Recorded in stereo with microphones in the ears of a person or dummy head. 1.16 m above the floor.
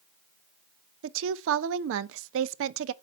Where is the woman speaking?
70° right (ahead or behind), 0.5 m.